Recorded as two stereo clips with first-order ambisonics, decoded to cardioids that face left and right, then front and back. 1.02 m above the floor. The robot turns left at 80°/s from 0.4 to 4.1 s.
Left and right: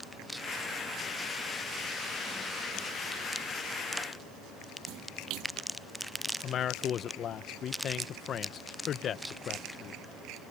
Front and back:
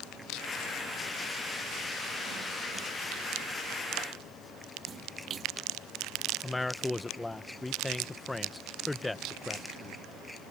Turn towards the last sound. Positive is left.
turn(degrees=80)